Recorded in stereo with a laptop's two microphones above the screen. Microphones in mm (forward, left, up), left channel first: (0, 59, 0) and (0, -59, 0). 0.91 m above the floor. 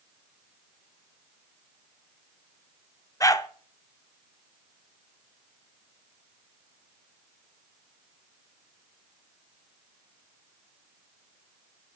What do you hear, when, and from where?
3.2 s a dog barking: 30° left (ahead or behind), 0.5 m